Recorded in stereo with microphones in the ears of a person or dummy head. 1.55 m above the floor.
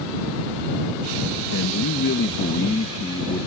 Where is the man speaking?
75° left (ahead or behind); by 3.5 s 15° left (ahead or behind).